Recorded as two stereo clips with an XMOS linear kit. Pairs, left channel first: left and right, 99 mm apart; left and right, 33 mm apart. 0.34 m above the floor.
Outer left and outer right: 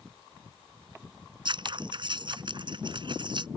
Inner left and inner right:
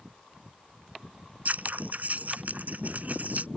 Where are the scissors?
55° right (ahead or behind).